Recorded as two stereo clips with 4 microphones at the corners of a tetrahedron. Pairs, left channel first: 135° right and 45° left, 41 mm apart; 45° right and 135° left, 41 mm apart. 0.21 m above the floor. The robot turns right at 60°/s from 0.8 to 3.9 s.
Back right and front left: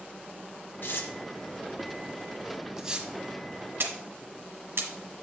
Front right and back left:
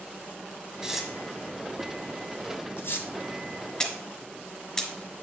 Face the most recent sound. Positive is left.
turn(degrees=30)